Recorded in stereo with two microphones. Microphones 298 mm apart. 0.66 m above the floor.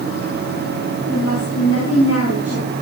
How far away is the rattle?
No rattle in this recording.